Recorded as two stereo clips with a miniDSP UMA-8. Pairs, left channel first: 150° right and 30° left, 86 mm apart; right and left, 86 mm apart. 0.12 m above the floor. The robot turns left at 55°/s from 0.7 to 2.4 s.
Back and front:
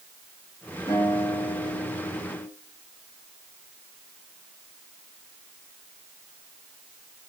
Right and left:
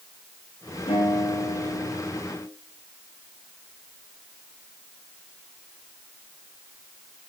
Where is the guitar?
100° right, 7.5 m; by 2.5 s 175° left, 7.5 m.